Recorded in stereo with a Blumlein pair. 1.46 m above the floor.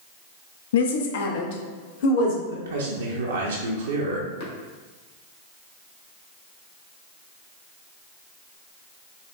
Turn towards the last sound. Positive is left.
turn(degrees=60)